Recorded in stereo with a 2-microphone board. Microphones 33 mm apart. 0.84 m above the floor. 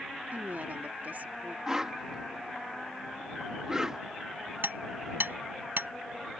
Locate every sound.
0.3 s a woman speaking: 60° right (ahead or behind)
1.7 s a whoosh: 10° right (ahead or behind)
4.6 s hammering: 85° right